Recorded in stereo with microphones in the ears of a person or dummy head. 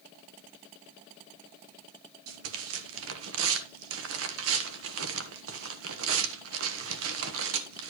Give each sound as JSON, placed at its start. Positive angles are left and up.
{"t": 2.3, "sound": "tearing paper", "side_deg": -80, "distance_m": 1.3}